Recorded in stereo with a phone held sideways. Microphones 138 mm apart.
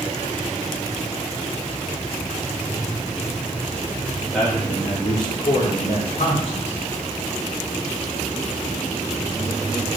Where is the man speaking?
5° left (ahead or behind), 2 m; by 6.8 s 55° left (ahead or behind), 3.5 m.